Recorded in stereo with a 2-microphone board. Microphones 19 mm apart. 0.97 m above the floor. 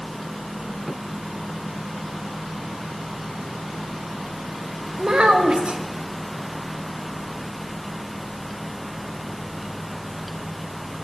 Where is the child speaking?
80° right, 0.8 m.